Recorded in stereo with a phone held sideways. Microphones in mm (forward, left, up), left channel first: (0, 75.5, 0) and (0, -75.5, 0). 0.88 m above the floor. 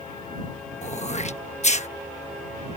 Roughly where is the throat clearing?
Left.